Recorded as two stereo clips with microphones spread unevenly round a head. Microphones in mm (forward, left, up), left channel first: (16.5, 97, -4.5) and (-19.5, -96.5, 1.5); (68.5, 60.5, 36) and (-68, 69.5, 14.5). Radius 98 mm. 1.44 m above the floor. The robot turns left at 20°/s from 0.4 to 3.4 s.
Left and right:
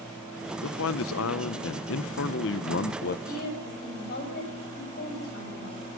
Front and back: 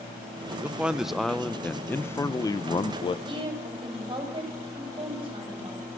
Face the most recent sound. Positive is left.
turn(degrees=120)